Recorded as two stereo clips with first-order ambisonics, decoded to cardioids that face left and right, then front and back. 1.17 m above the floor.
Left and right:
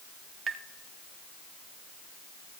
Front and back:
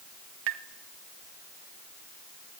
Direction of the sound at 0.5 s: 155° right.